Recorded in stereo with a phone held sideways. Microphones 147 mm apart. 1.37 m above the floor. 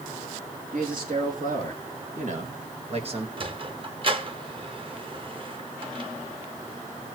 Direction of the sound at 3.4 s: 35° right (ahead or behind).